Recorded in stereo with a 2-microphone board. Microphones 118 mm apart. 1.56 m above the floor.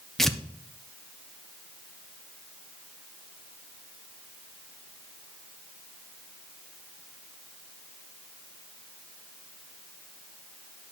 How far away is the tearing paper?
About 0.6 m.